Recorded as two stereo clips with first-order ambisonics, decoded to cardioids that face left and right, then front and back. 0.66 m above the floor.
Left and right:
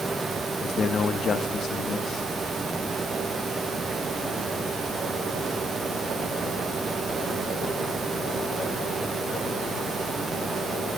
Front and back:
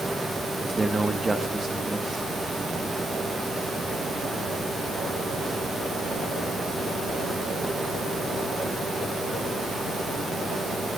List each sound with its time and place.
0.6 s a man speaking: 110° left, 0.8 m